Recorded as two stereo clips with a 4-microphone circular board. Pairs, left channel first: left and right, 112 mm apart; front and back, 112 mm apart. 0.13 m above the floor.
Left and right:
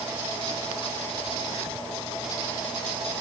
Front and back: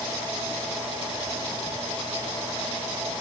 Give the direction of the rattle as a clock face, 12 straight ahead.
I don't hear a rattle.